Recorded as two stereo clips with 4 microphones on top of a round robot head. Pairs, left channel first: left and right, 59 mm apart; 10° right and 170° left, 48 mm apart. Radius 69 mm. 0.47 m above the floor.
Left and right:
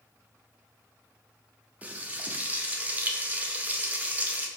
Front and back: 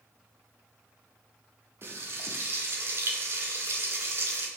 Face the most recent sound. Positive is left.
turn(degrees=-155)